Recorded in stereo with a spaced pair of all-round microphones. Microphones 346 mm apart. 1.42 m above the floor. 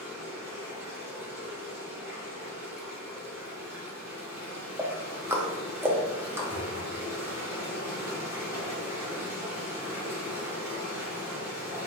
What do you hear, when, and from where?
0.0 s running water: 10° right (ahead or behind), 1.9 m
4.8 s ticking: 5° right (ahead or behind), 0.6 m
6.5 s a thud: 45° right (ahead or behind), 1.9 m